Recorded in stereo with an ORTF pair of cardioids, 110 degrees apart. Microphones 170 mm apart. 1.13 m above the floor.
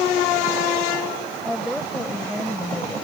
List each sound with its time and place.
1.4 s a woman speaking: straight ahead